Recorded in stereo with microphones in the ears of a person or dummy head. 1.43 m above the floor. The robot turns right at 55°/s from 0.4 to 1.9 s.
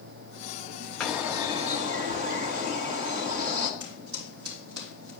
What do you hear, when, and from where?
1.0 s a bird: 175° left, 1.0 m; by 3.7 s 135° right, 1.0 m
3.8 s footsteps: 60° right (ahead or behind), 3.5 m; by 5.1 s 70° right (ahead or behind), 4 m